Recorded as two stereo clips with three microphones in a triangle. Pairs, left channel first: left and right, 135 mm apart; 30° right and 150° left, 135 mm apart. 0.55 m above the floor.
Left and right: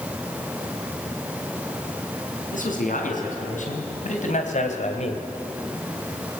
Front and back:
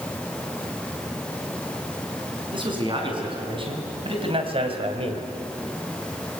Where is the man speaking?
100° left, 6 m; by 5.3 s 115° left, 2 m.